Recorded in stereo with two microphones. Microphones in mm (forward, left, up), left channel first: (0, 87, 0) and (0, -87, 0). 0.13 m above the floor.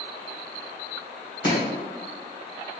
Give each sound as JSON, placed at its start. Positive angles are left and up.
{"t": 1.4, "sound": "chopping", "side_deg": 30, "distance_m": 1.9}